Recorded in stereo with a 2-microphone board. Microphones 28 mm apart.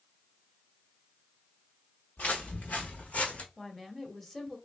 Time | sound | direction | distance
2.2 | footsteps | 85° left | 1.7 m
3.6 | a woman speaking | 10° left (ahead or behind) | 1.2 m